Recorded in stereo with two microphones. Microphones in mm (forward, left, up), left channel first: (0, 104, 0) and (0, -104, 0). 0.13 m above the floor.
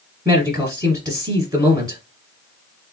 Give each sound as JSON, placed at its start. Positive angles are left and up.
{"t": 0.2, "sound": "a man speaking", "side_deg": -20, "distance_m": 2.0}